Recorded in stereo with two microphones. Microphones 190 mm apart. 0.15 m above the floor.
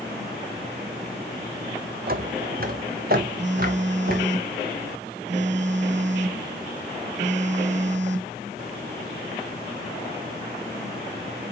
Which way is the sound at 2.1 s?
50° right (ahead or behind).